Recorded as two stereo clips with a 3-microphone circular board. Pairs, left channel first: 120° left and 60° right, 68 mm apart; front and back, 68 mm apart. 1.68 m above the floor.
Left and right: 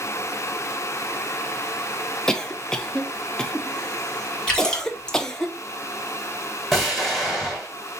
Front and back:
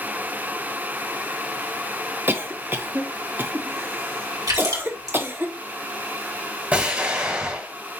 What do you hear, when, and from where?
2.3 s a cough: 165° right, 0.6 m
4.5 s a splash: 170° right, 2 m
6.7 s an explosion: 155° right, 1.6 m